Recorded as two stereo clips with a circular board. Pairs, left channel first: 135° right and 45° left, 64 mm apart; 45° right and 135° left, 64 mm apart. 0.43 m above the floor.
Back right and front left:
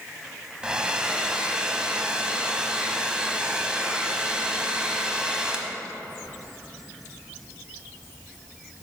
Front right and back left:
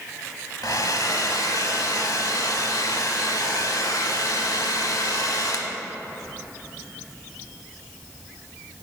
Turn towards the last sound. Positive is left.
turn(degrees=-30)